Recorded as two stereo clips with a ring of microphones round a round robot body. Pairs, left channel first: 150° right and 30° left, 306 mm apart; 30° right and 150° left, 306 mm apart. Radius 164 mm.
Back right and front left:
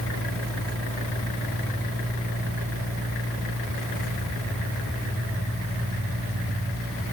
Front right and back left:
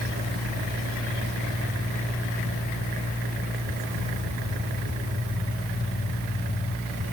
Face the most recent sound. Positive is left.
No sound to turn to.